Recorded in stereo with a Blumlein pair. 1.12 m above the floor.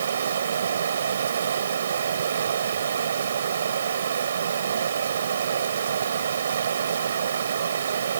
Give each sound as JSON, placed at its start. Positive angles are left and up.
{"t": 0.0, "sound": "running water", "azimuth_deg": -65}